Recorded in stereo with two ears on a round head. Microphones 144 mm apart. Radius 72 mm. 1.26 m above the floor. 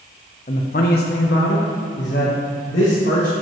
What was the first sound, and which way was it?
A man speaking, 40° left (ahead or behind).